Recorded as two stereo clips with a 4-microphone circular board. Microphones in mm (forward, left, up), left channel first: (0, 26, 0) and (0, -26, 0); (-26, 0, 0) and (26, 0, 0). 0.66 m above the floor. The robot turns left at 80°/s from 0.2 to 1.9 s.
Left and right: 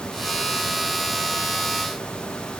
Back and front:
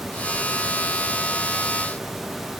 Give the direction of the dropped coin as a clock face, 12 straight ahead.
No dropped coin in this recording.